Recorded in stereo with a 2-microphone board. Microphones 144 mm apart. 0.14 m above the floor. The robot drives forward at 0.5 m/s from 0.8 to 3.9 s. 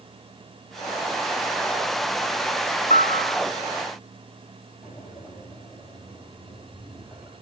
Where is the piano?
50° left (ahead or behind), 1.5 m; by 3.4 s 45° left (ahead or behind), 1.7 m.